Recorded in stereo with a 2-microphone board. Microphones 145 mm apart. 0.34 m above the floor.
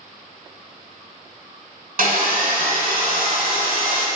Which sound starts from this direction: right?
Sawing, at 2.0 s.